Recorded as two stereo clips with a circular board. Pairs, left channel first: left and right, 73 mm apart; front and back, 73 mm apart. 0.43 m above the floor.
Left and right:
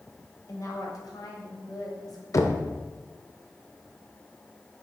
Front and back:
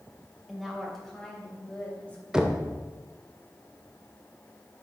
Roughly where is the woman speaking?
Left.